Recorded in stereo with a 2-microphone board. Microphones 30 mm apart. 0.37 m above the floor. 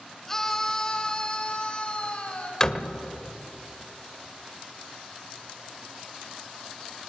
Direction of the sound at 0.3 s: 10° left (ahead or behind).